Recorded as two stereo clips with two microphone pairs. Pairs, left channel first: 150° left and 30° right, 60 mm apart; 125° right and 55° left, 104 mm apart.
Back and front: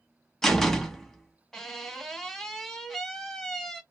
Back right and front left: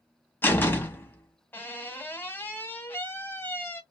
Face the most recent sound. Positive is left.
turn(degrees=-145)